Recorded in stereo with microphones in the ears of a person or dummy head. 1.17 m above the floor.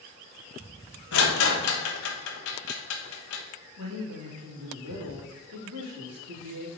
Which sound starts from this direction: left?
A rattle, at 1.1 s.